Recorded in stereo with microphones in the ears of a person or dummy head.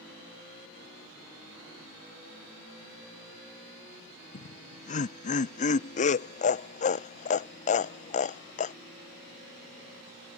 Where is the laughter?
40° left (ahead or behind).